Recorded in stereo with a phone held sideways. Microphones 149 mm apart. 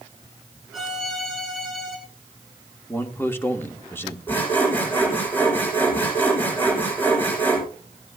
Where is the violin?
Centre (ahead or behind), 5.5 m.